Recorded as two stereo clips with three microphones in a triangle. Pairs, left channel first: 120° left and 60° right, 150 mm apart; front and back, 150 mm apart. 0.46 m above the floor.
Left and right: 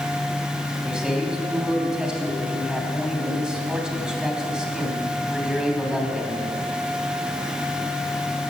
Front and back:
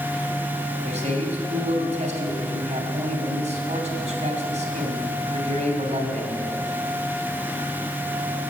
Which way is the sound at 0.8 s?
145° right.